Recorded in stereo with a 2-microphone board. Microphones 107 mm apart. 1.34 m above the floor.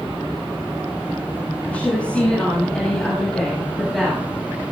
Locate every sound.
1.6 s a woman speaking: 15° left (ahead or behind), 9 m; by 4.2 s centre (ahead or behind), 9.5 m